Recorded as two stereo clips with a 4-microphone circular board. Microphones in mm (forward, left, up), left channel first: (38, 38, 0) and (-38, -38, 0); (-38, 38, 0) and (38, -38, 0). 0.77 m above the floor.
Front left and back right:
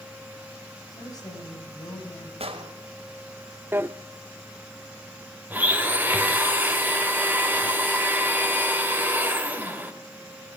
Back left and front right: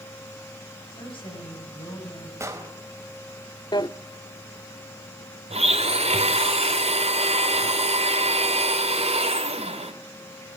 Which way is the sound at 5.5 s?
60° right.